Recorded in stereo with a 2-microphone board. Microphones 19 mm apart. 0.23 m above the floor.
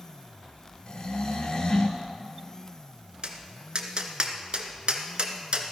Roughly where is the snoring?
Left.